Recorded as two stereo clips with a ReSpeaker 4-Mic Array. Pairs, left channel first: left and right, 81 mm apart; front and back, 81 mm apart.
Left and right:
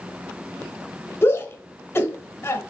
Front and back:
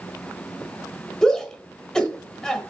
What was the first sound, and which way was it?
A shout, 75° left.